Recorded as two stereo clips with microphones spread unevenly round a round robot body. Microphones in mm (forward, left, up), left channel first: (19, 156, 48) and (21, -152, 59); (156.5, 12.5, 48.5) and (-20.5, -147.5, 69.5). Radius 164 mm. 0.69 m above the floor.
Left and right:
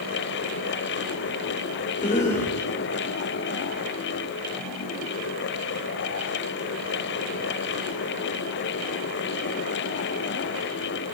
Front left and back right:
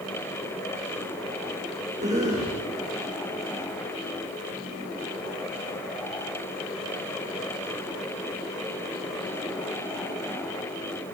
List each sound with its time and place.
2.0 s a cough: 155° left, 3 m